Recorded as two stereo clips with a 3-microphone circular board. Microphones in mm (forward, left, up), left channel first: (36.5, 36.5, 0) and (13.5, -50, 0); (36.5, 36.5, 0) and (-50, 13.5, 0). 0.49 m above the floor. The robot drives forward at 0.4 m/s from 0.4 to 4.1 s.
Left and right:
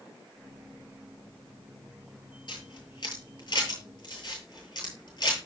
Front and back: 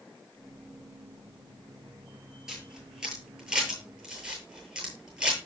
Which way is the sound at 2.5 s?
110° left.